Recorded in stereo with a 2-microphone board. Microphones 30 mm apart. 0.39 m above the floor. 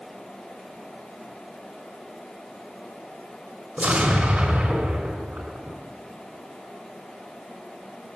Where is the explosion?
45° right (ahead or behind), 3 m.